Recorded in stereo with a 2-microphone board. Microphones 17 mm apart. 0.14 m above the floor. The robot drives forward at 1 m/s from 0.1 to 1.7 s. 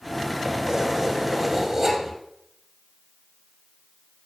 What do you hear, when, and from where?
0.5 s keys jangling: 40° right (ahead or behind), 2.5 m; by 2.1 s 30° right (ahead or behind), 3.5 m